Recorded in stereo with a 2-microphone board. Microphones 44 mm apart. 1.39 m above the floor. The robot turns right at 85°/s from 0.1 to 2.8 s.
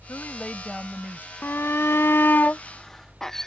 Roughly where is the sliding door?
No sliding door in this recording.